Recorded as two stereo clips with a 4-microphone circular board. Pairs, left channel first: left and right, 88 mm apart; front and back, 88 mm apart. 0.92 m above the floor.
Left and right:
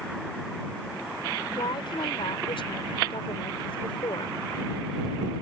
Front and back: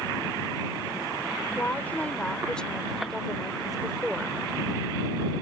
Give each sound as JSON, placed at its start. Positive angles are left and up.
{"t": 1.6, "sound": "a woman speaking", "azimuth_deg": 70}